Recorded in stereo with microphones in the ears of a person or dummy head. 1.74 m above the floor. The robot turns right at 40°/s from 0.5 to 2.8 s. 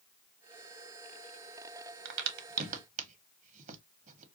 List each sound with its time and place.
2.0 s a crack: 65° right (ahead or behind), 0.9 m; by 4.2 s 45° right (ahead or behind), 0.9 m